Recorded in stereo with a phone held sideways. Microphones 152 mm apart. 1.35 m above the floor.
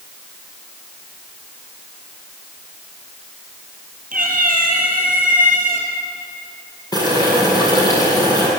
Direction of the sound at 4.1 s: 65° right (ahead or behind).